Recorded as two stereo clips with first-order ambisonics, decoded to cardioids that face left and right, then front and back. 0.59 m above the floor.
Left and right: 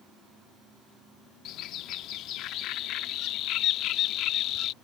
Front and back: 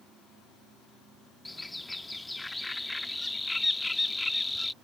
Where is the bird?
80° left.